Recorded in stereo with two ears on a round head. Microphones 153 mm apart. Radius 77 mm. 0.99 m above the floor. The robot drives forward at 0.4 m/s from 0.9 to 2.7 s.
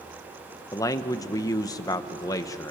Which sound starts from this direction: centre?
A man speaking, at 0.7 s.